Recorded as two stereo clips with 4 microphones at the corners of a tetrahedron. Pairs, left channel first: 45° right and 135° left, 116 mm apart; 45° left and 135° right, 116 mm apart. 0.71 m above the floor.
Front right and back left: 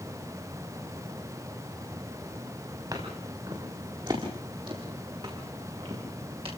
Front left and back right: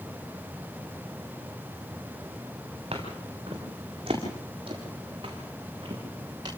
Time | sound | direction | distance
2.9 | footsteps | 170° right | 8 m